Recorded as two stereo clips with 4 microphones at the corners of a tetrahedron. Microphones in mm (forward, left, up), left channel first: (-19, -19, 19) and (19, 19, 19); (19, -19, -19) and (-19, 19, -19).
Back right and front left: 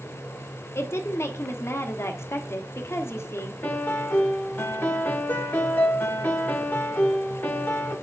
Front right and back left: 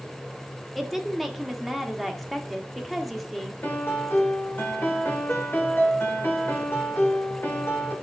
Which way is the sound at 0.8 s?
135° right.